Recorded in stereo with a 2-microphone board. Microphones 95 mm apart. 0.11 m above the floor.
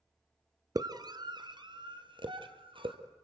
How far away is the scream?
About 1.6 m.